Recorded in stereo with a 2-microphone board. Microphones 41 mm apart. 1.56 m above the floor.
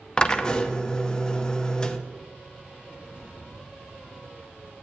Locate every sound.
0.2 s a drill: 20° left (ahead or behind), 0.6 m